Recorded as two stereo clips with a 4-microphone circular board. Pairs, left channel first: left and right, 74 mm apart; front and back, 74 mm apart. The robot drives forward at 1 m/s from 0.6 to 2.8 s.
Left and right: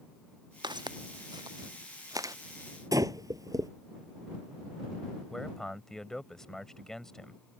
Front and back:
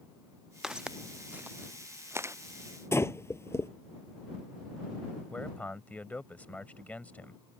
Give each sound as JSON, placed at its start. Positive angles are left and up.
{"t": 0.6, "sound": "footsteps", "azimuth_deg": -100}
{"t": 2.9, "sound": "breathing", "azimuth_deg": -50}
{"t": 5.3, "sound": "a man speaking", "azimuth_deg": 20}